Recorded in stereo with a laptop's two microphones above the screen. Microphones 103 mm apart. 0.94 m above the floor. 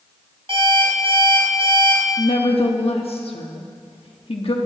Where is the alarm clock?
65° right (ahead or behind), 4 m.